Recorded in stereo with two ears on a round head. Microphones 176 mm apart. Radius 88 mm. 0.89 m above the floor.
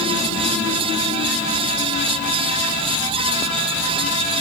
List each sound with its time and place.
Only background noise.